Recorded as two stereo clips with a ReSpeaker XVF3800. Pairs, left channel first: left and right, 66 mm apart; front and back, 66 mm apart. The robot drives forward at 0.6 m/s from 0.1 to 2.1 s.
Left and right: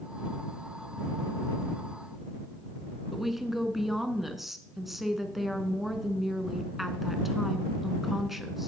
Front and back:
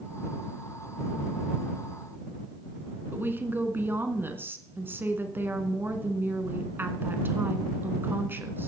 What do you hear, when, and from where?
3.1 s a woman speaking: 175° right, 1.2 m